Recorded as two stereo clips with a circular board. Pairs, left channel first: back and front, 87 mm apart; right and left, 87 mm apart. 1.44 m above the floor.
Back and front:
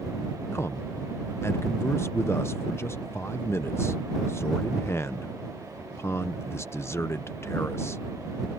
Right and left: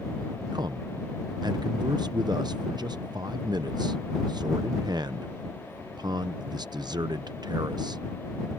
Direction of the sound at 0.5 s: 120° left.